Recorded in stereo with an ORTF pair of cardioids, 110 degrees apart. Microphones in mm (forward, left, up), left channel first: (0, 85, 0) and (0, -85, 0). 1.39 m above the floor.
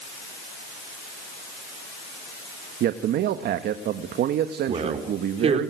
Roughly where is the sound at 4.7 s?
Ahead right.